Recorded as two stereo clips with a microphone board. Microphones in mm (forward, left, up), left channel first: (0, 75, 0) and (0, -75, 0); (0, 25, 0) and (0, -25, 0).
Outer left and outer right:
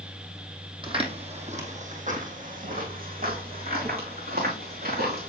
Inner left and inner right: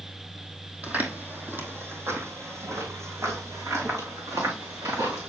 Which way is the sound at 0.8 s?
30° right (ahead or behind).